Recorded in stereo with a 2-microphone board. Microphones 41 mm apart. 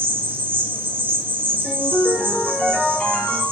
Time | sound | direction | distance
0.0 | an insect | 55° right (ahead or behind) | 1.0 m
1.6 | a ringtone | 40° left (ahead or behind) | 1.1 m